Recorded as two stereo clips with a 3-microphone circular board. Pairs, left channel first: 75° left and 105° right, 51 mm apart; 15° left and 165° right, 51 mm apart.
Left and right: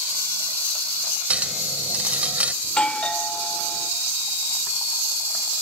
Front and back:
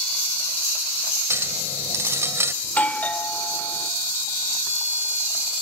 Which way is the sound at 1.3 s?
165° right.